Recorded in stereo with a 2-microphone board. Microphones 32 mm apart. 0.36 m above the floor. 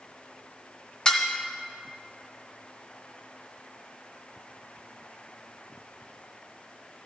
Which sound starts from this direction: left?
Dishes clattering, at 1.1 s.